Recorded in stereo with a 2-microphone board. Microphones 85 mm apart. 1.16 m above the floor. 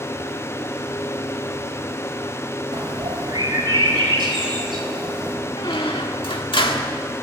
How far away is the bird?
About 5 m.